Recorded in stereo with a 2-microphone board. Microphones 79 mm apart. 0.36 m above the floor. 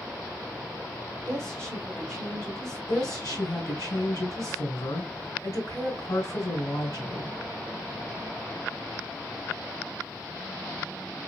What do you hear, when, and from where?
1.3 s a woman speaking: 5° left (ahead or behind), 1.3 m
2.9 s a woman speaking: 40° left (ahead or behind), 3 m